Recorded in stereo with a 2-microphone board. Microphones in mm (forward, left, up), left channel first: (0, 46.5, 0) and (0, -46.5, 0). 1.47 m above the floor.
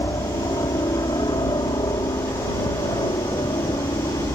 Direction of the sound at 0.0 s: 50° left (ahead or behind).